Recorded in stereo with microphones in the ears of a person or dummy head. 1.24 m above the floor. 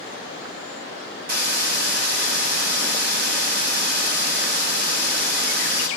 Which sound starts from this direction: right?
A hiss, at 1.3 s.